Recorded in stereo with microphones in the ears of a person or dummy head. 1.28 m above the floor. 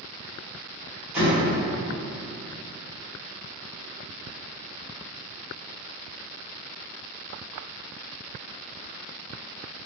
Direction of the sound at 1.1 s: 5° right (ahead or behind).